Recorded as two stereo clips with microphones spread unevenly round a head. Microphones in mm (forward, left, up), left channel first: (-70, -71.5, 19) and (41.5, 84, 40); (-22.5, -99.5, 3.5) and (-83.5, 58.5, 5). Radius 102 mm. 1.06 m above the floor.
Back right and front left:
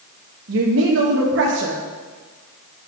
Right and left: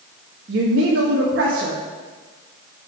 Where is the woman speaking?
80° left, 1.3 m.